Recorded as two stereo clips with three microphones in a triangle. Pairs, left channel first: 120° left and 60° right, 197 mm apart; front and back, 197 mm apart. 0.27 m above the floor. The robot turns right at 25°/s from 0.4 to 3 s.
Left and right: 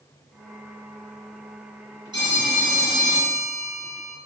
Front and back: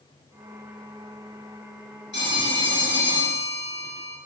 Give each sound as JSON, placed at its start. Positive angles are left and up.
{"t": 2.1, "sound": "a phone ringing", "azimuth_deg": 5, "distance_m": 2.5}